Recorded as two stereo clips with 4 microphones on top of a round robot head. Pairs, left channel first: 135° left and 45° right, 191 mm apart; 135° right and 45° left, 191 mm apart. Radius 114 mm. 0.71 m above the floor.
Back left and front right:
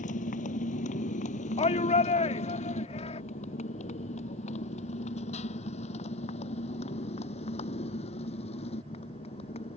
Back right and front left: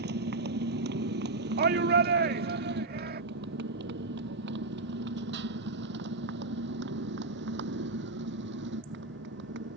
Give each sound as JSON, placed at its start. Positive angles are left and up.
{"t": 0.0, "sound": "a motorcycle", "azimuth_deg": 80}
{"t": 1.6, "sound": "a shout", "azimuth_deg": 75}